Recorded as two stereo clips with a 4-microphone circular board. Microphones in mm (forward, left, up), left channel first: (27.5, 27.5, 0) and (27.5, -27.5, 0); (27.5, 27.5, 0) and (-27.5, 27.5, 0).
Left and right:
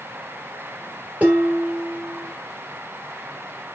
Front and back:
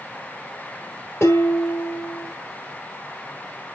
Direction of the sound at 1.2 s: 30° right.